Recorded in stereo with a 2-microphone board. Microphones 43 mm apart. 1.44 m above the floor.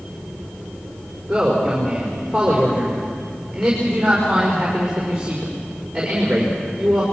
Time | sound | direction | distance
1.3 | a man speaking | 10° right (ahead or behind) | 5 m